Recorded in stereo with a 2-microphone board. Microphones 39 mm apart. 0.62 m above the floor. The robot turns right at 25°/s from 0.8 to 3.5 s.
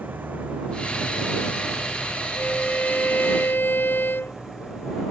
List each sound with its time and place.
0.0 s an engine running: 60° right; by 5.1 s 10° left
2.4 s a violin: 40° left (ahead or behind); by 4.4 s 65° left (ahead or behind)